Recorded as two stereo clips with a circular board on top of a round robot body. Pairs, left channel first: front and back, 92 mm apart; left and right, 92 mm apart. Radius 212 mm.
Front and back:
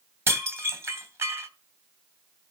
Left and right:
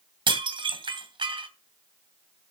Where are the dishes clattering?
120° right, 2.5 m.